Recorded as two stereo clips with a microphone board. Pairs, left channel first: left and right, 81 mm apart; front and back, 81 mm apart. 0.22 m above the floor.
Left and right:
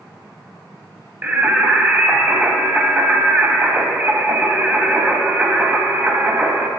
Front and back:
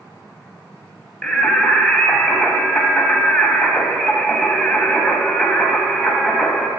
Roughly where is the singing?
Right.